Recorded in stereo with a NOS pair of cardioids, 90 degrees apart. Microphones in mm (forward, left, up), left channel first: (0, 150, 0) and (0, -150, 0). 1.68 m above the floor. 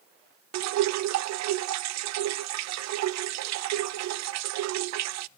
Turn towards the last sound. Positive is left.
turn(degrees=-65)